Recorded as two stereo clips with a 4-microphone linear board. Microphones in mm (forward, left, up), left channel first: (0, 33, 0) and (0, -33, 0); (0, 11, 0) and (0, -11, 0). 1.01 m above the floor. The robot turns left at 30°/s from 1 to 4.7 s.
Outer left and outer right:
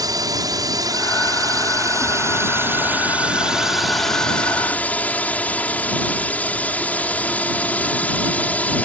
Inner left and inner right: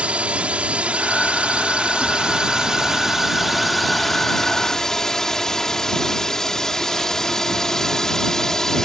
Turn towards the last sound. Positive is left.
turn(degrees=155)